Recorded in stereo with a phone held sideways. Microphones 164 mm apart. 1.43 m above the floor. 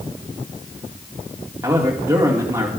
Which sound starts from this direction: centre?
A man speaking, at 1.6 s.